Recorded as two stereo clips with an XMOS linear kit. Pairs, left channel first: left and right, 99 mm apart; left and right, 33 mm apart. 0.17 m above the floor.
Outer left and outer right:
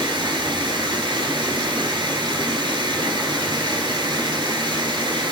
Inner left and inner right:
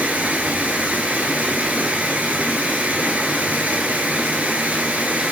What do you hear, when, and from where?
0.0 s running water: 55° right (ahead or behind), 0.8 m